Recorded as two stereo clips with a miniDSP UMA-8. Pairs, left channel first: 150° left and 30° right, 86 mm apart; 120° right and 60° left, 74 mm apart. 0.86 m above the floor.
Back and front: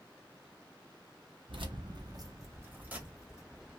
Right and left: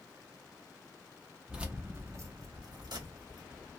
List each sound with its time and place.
1.5 s keys jangling: 20° right, 0.8 m; by 3.7 s 55° left, 1.3 m